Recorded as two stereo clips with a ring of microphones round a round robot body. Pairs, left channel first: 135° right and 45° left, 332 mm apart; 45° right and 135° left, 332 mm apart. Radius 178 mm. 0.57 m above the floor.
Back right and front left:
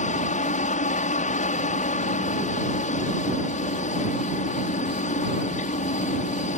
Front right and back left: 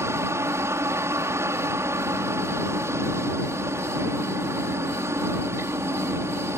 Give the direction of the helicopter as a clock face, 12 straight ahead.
5 o'clock.